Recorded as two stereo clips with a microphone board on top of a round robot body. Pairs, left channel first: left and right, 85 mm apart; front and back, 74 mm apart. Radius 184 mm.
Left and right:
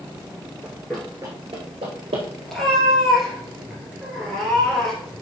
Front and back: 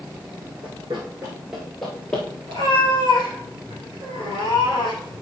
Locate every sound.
0.6 s running footsteps: 150° left, 1.1 m; by 2.2 s 80° right, 1.4 m
2.5 s a cat meowing: straight behind, 2.0 m